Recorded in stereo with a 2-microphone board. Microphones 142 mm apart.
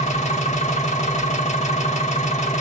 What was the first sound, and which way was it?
An engine running, 55° left (ahead or behind).